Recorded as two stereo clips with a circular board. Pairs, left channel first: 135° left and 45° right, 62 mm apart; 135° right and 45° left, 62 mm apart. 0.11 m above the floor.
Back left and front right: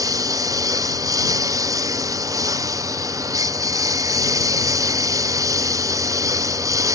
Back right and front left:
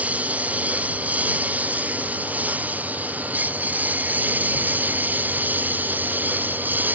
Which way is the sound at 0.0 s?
20° right.